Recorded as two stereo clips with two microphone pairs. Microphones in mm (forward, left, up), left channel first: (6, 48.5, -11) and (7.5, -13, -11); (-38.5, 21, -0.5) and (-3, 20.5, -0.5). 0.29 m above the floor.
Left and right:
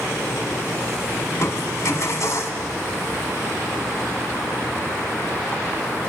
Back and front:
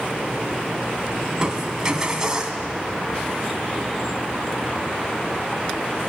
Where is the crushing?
70° left, 2.0 m.